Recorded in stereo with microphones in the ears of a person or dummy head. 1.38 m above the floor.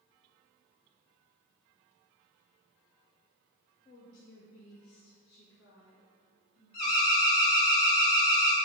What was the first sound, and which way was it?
A woman speaking, 30° left (ahead or behind).